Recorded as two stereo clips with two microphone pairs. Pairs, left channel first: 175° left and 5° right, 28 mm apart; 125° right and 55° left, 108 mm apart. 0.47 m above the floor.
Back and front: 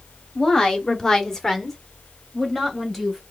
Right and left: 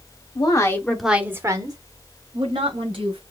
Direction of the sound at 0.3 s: 125° right.